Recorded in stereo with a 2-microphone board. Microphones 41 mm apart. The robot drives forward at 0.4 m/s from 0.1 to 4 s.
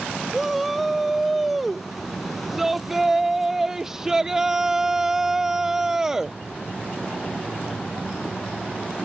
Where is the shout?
5° right (ahead or behind); by 6.4 s 15° right (ahead or behind).